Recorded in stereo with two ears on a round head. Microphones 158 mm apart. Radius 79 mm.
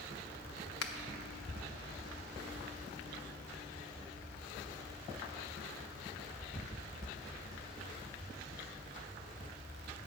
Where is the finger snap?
70° left (ahead or behind), 0.9 m.